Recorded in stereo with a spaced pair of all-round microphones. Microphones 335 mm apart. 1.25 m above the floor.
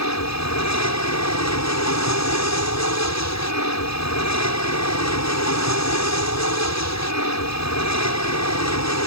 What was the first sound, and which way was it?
An aircraft, 50° left (ahead or behind).